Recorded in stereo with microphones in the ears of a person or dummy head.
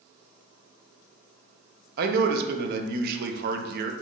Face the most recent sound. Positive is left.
turn(degrees=-60)  # may be behind; listen again after turning